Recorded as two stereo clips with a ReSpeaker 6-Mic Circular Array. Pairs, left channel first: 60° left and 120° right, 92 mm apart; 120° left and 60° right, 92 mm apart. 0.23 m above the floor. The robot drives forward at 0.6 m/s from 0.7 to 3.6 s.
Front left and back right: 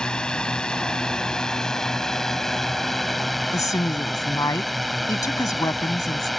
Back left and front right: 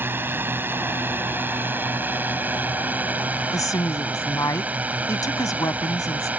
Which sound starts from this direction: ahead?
A drone, at 0.0 s.